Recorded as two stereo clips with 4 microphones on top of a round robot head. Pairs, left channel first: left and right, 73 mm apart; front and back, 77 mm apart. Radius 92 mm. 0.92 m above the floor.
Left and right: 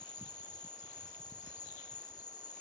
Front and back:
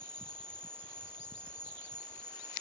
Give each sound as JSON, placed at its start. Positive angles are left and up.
{"t": 0.0, "sound": "an insect", "azimuth_deg": 75, "distance_m": 3.0}